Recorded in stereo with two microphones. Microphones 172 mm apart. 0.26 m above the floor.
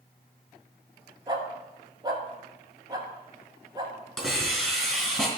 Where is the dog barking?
25° right (ahead or behind), 1.2 m.